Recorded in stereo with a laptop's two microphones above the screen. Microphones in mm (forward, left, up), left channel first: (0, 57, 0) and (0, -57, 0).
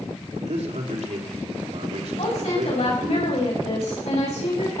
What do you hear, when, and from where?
0.3 s a man speaking: 75° right (ahead or behind), 4 m
2.2 s a woman speaking: 70° left (ahead or behind), 7 m